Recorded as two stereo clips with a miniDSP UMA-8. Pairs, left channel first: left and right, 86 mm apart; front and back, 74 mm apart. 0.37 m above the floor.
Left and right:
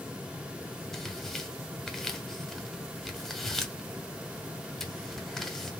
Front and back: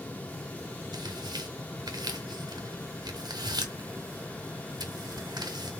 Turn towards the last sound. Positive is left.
turn(degrees=175)